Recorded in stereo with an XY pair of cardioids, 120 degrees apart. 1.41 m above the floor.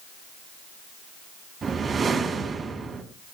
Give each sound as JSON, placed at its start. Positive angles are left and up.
{"t": 1.6, "sound": "a whoosh", "azimuth_deg": -35, "distance_m": 4.0}